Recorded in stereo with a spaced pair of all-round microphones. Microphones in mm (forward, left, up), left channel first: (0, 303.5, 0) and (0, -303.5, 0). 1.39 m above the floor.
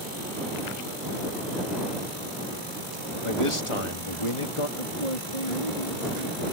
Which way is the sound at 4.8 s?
75° left (ahead or behind).